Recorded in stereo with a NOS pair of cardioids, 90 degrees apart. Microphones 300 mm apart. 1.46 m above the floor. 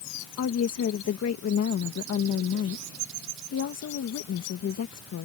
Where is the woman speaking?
55° left.